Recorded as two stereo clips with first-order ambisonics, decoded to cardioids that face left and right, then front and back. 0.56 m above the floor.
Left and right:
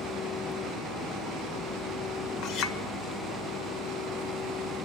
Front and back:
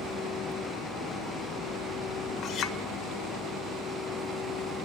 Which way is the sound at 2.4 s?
50° left.